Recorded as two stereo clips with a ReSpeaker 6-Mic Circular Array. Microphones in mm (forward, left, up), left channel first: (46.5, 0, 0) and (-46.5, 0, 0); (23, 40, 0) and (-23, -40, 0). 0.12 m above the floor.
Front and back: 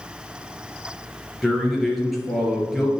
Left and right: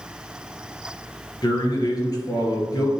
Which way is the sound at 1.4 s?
90° left.